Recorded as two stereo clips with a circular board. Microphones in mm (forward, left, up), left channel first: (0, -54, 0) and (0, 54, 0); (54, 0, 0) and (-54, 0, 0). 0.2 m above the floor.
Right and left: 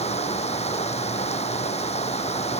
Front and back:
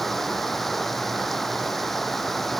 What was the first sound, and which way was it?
Running water, 90° right.